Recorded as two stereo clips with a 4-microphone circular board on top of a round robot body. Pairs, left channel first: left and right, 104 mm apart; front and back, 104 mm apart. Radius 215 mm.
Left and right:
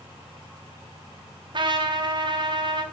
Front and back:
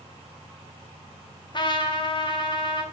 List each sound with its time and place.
1.5 s a trumpet: 45° right, 2 m